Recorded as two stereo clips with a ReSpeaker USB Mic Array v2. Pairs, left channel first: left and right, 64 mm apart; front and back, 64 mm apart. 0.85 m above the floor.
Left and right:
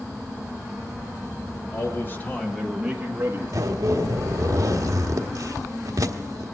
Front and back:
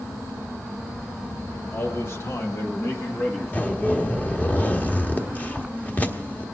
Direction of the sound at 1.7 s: 55° left.